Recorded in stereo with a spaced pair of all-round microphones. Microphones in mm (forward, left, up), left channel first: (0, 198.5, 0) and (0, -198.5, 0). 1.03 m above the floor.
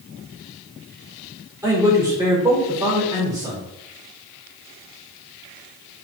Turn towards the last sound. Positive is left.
turn(degrees=-5)  # may be behind; listen again after turning